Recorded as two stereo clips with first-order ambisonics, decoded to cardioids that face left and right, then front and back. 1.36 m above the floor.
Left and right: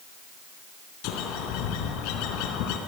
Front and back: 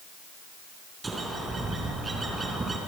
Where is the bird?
105° left, 3.5 m.